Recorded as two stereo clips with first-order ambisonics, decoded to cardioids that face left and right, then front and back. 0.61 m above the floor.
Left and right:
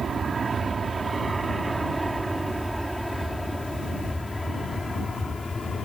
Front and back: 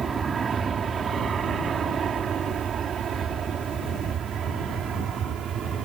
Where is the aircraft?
135° right; by 5.9 s 155° left.